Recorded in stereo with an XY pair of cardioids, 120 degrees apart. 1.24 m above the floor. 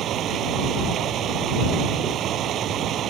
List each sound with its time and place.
0.0 s running water: 60° right